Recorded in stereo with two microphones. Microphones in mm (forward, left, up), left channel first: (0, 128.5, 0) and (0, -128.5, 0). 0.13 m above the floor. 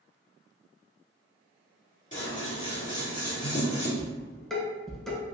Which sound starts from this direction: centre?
Dishes clattering, at 4.0 s.